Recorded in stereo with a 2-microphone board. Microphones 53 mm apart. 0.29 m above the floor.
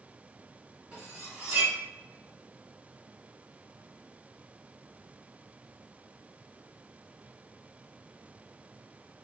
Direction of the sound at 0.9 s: 25° right (ahead or behind).